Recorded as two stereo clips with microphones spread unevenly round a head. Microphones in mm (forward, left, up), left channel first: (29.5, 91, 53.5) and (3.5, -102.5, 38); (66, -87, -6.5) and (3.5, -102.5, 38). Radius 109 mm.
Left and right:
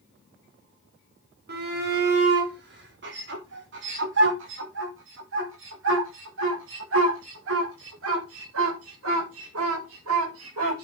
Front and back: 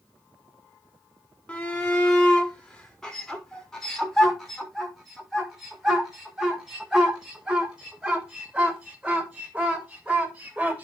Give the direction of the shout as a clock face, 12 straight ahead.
2 o'clock.